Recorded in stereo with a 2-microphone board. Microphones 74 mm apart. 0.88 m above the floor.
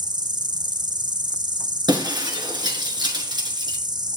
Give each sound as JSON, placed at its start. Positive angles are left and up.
{"t": 0.0, "sound": "an insect", "side_deg": -70, "distance_m": 0.8}
{"t": 1.9, "sound": "breaking glass", "side_deg": -75, "distance_m": 4.5}